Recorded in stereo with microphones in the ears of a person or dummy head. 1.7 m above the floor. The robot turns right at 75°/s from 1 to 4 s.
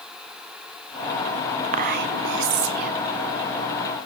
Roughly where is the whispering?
Behind right.